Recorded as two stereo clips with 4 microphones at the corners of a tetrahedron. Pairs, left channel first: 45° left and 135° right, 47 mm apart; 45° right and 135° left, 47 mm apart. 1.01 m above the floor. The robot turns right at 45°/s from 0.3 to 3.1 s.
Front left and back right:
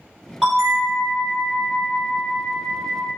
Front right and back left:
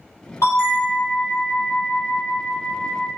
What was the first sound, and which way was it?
A bell, 60° right.